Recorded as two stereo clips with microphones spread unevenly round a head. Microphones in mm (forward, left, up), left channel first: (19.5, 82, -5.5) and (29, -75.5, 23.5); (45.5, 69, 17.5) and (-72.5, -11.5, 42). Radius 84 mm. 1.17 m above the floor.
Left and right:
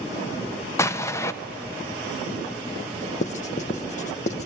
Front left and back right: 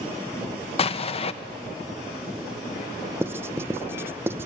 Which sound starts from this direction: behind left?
Writing, at 3.2 s.